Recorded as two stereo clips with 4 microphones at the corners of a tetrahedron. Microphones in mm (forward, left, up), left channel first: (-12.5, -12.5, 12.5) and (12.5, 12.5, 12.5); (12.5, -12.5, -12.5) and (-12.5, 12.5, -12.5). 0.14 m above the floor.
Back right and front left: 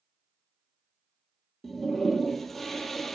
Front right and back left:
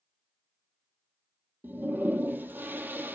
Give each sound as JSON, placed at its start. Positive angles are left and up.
{"t": 1.6, "sound": "a toilet flushing", "azimuth_deg": 145, "distance_m": 0.6}